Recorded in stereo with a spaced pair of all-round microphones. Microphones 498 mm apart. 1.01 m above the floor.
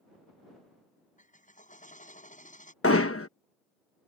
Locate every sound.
1.2 s a drill: 15° left (ahead or behind)
2.8 s hammering: 25° left (ahead or behind)